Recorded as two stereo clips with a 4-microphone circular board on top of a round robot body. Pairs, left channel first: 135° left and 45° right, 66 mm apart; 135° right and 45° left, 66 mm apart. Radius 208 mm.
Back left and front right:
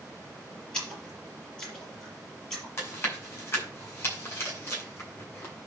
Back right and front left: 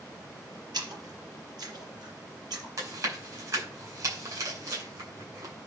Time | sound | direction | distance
0.7 | a splash | 60° left | 5 m
2.8 | chewing | 80° left | 7.5 m